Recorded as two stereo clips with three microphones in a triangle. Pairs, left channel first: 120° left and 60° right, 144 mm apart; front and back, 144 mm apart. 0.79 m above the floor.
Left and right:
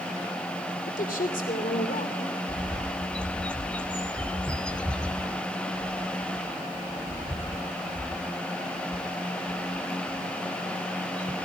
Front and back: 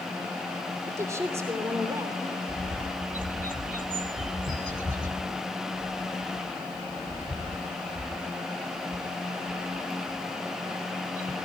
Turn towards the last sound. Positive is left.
turn(degrees=-160)